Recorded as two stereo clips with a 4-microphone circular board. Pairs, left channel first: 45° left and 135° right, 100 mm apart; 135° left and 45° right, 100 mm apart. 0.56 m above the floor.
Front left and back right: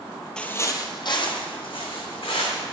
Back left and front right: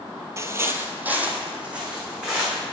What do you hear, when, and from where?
0.4 s footsteps: 30° right, 0.6 m; by 2.6 s 35° left, 2.5 m